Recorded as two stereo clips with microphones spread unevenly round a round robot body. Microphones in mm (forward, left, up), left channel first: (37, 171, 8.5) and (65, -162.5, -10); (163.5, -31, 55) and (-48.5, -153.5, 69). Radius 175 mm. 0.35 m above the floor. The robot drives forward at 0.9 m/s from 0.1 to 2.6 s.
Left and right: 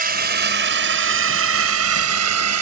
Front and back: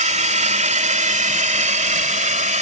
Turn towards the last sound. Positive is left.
turn(degrees=-95)